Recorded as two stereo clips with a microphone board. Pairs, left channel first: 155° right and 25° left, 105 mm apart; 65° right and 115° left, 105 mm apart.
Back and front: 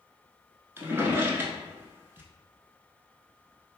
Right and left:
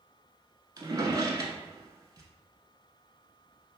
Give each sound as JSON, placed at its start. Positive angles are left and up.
{"t": 0.8, "sound": "a drawer", "azimuth_deg": 80, "distance_m": 0.7}